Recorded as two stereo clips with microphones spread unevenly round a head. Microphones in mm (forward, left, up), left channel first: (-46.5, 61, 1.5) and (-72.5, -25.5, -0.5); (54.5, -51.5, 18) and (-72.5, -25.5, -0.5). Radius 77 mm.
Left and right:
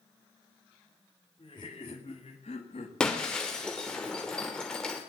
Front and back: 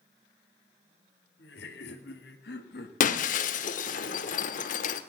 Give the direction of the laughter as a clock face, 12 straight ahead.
12 o'clock.